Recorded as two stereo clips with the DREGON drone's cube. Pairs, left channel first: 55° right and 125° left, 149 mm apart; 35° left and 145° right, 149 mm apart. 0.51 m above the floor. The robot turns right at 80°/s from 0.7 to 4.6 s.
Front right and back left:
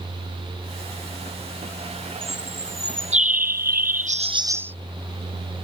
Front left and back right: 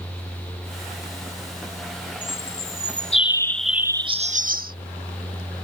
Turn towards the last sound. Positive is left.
turn(degrees=-160)